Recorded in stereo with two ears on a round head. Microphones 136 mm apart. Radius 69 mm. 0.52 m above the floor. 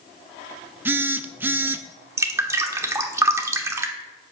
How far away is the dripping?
About 1.1 m.